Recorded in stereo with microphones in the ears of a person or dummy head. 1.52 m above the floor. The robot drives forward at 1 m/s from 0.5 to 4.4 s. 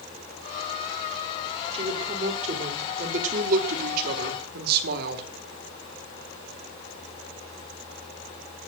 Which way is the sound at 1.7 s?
35° right (ahead or behind).